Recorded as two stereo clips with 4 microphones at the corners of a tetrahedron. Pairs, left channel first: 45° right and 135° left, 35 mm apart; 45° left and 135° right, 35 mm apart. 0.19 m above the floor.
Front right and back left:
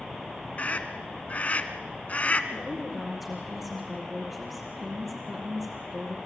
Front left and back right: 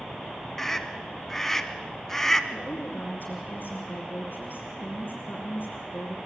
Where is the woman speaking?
55° left, 3.5 m.